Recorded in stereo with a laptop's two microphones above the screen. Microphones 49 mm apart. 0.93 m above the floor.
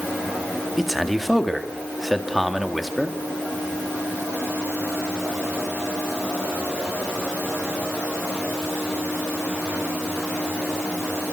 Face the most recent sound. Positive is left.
turn(degrees=0)  # may be behind; listen again after turning